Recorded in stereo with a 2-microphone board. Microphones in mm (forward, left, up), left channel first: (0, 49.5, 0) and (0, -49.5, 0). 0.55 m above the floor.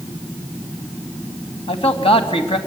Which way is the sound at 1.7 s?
70° left (ahead or behind).